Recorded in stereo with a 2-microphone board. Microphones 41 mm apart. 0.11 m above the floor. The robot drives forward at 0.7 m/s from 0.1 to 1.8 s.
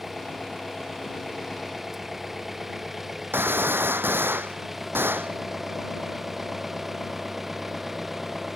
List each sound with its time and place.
0.0 s an engine running: 5° right (ahead or behind)
3.3 s a gunshot: 65° right (ahead or behind)